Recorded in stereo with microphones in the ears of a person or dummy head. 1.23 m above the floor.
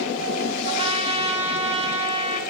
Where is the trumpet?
25° right (ahead or behind), 1.0 m.